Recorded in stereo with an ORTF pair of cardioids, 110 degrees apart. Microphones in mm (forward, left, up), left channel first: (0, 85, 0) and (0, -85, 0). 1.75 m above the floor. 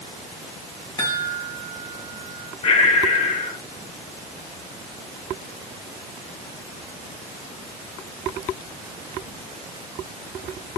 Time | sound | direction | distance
1.0 | a chime | 30° left | 1.5 m
2.6 | breathing | 40° left | 0.7 m